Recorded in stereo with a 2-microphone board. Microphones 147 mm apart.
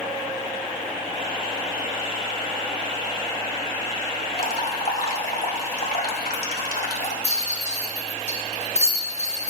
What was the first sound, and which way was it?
Dripping, 75° left (ahead or behind).